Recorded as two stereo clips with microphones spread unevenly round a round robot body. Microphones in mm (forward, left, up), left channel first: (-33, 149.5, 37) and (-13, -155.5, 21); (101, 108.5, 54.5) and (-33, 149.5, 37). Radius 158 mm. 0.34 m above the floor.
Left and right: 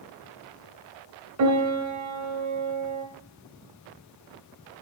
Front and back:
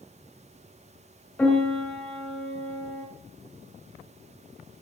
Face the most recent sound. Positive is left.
turn(degrees=-100)